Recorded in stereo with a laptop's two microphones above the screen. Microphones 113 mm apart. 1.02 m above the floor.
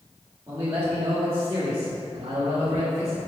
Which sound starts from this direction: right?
A man speaking, at 0.5 s.